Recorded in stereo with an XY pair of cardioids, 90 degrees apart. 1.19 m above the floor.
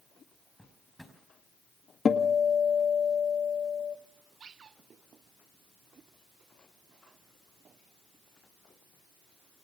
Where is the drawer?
5° left, 5 m.